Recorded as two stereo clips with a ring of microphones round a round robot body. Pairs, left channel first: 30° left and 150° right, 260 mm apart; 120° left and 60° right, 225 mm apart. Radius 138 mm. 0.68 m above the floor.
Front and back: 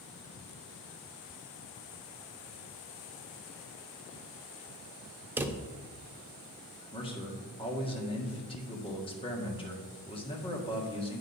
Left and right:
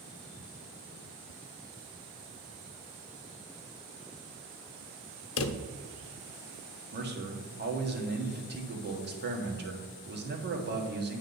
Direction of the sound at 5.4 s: 130° left.